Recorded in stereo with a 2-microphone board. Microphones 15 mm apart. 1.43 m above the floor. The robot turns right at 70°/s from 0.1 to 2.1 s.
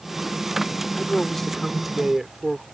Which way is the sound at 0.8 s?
120° left.